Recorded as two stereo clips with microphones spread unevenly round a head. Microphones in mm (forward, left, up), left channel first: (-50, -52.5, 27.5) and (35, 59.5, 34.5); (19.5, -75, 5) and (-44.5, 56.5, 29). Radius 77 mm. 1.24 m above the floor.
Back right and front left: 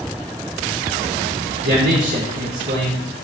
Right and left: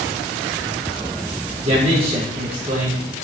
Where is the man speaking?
60° left, 3.5 m.